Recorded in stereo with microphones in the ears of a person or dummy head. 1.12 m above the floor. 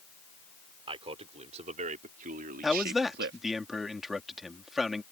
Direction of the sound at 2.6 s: Centre (ahead or behind).